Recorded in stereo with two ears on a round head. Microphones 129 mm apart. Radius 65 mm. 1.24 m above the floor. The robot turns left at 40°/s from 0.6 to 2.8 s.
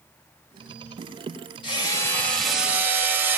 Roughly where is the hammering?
Ahead left.